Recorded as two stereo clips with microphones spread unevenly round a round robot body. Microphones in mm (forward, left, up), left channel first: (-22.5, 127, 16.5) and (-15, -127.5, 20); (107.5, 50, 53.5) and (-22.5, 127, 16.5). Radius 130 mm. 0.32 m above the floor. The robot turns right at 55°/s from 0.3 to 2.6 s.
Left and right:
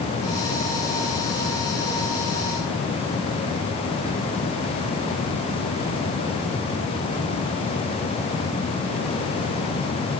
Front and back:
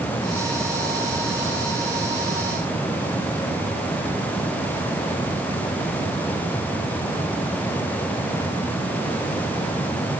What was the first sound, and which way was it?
Only background noise.